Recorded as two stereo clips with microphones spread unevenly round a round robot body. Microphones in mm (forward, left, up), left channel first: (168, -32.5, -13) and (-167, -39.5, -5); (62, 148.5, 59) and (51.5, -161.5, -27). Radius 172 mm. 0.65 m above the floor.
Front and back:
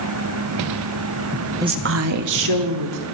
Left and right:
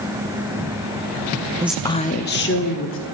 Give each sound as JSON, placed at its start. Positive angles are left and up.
{"t": 1.6, "sound": "a woman speaking", "azimuth_deg": -105, "distance_m": 0.5}